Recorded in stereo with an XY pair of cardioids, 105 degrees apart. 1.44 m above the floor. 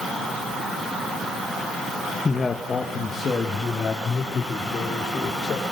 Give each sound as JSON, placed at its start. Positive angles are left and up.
{"t": 2.2, "sound": "a man speaking", "azimuth_deg": 25, "distance_m": 1.5}